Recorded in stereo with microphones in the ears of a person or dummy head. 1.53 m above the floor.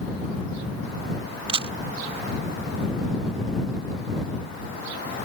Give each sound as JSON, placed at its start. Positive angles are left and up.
{"t": 1.5, "sound": "a camera shutter", "side_deg": -30}